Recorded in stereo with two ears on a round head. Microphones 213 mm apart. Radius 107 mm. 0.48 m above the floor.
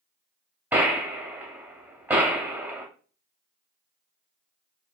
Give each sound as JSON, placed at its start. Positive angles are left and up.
{"t": 0.7, "sound": "a gunshot", "side_deg": -10, "distance_m": 0.8}